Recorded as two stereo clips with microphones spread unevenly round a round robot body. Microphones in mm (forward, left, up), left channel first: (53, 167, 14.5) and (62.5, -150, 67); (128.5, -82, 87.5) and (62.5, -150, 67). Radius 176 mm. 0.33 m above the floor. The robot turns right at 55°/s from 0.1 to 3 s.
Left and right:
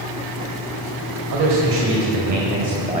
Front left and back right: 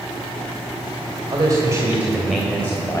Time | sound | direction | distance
1.3 | a man speaking | 110° right | 2 m